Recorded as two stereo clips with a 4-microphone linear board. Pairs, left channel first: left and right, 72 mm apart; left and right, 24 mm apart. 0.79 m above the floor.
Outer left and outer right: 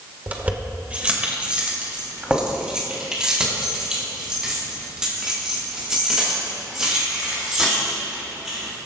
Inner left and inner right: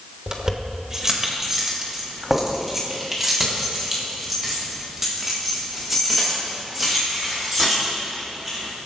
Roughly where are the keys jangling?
Right.